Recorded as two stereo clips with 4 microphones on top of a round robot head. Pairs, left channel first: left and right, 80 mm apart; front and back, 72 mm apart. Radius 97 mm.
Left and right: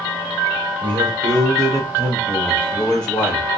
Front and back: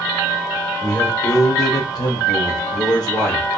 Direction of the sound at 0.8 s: 70° right.